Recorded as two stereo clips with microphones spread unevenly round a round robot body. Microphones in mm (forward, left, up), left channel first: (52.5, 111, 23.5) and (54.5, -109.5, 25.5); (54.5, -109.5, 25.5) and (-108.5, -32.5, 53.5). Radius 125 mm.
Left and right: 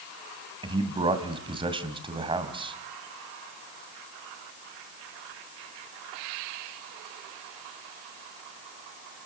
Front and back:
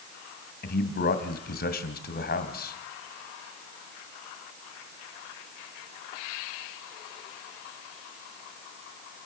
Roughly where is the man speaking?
Ahead right.